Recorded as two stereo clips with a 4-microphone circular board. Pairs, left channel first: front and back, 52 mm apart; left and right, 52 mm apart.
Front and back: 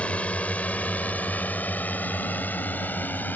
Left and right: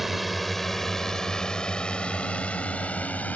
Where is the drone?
5° right; by 3.4 s 40° left.